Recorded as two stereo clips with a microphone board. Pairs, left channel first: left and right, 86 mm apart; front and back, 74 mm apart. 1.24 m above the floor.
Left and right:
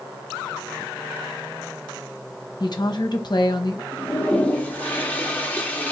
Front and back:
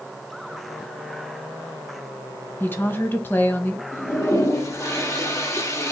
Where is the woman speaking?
60° left, 1.0 m.